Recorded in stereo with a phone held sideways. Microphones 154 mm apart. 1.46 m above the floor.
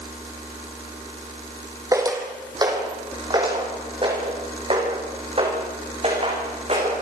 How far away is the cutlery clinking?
I don't hear cutlery clinking.